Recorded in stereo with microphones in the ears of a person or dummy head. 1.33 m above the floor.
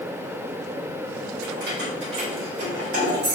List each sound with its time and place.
1.4 s keys jangling: 55° right (ahead or behind), 1.6 m; by 3.4 s 80° right, 3.5 m